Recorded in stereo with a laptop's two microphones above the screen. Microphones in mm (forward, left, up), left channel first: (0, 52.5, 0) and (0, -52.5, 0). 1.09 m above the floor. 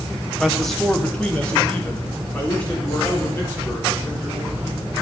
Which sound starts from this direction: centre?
A man speaking, at 0.4 s.